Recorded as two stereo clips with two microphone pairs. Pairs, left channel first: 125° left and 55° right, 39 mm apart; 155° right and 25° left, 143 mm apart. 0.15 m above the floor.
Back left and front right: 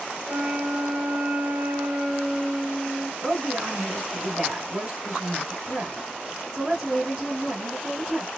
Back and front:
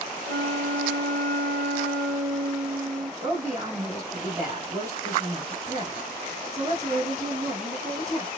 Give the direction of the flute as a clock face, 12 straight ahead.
3 o'clock.